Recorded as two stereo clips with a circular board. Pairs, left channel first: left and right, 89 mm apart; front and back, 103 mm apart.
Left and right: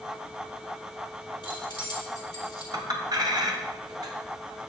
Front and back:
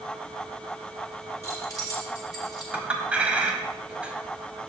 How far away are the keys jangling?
About 3.5 m.